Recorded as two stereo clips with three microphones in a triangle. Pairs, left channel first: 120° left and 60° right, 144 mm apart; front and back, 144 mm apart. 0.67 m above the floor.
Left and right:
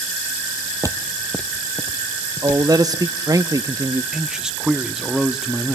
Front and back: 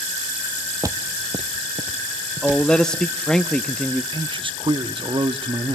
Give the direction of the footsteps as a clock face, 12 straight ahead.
4 o'clock.